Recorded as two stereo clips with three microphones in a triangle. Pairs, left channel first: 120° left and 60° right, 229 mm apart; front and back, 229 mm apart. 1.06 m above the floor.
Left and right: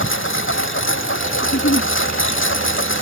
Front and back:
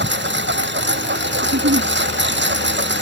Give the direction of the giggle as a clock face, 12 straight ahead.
7 o'clock.